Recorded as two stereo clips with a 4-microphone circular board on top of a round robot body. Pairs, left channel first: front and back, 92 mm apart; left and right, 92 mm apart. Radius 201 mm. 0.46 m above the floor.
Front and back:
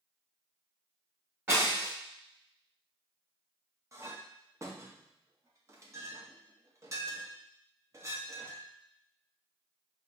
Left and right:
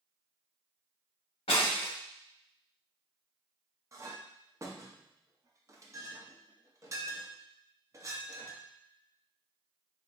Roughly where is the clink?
Behind right.